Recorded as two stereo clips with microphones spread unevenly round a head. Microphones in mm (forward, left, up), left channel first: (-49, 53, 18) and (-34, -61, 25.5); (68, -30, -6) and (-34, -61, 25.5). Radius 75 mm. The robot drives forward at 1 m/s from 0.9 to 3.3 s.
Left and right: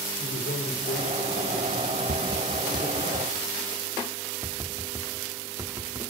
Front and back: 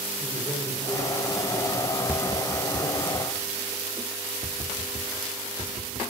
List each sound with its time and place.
0.2 s a man speaking: 85° left, 5 m; by 3.1 s 115° left, 5 m
2.1 s tapping: 95° right, 0.9 m; by 6.0 s 145° right, 1.6 m